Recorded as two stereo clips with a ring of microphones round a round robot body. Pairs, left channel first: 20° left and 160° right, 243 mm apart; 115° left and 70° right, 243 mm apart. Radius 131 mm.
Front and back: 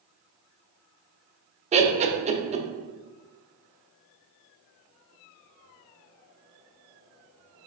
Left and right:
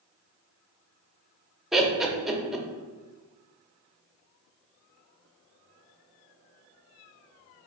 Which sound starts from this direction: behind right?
Laughter, at 1.7 s.